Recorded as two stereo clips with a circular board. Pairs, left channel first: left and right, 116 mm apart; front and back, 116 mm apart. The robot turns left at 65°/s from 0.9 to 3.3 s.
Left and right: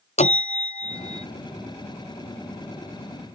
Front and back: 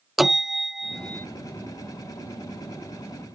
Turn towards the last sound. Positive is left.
turn(degrees=-65)